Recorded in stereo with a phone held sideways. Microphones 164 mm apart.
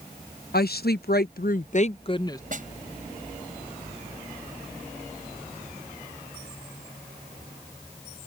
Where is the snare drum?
55° right (ahead or behind).